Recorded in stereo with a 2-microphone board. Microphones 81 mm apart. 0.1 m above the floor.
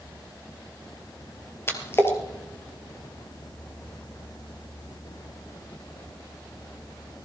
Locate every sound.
1.7 s a splash: 30° left (ahead or behind), 2.5 m